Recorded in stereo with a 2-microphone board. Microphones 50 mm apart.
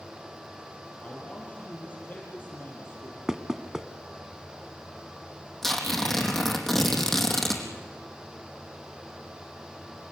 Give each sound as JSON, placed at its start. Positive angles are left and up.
{"t": 1.0, "sound": "a man speaking", "side_deg": 30, "distance_m": 6.5}
{"t": 3.3, "sound": "knocking", "side_deg": -10, "distance_m": 1.1}
{"t": 5.6, "sound": "tearing paper", "side_deg": 5, "distance_m": 4.0}